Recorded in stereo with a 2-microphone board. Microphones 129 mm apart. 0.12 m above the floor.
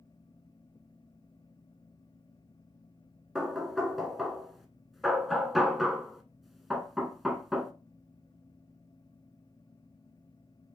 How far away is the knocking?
About 0.8 m.